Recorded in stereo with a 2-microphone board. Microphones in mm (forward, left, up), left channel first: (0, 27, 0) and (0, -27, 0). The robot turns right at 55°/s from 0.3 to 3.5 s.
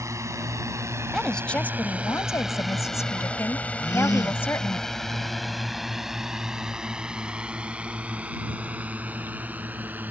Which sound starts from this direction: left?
A gasp, at 3.8 s.